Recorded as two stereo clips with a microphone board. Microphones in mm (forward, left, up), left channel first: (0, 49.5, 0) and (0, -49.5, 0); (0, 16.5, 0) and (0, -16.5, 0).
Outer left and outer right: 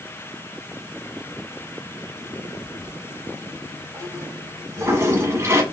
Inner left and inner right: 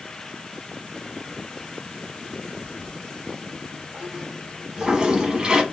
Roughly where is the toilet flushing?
Right.